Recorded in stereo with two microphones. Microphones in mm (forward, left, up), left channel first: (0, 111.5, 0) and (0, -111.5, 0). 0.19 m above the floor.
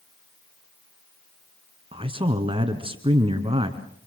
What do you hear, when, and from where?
1.9 s a man speaking: 25° right (ahead or behind), 2.0 m